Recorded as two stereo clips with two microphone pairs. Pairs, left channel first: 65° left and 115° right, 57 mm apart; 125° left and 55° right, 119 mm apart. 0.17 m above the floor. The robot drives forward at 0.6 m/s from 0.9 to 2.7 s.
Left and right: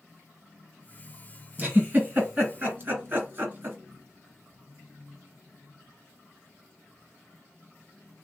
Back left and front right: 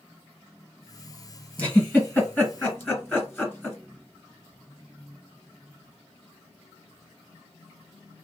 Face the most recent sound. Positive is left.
turn(degrees=-170)